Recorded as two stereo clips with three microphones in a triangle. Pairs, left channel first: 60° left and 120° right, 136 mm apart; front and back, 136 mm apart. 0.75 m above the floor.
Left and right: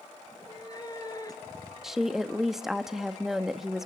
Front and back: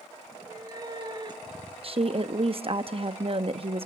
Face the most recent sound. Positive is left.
turn(degrees=155)